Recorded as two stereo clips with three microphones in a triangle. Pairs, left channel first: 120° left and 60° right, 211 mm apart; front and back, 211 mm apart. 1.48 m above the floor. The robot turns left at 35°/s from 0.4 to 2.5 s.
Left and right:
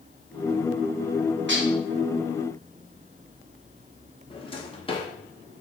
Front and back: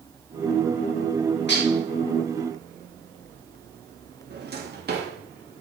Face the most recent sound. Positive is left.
turn(degrees=175)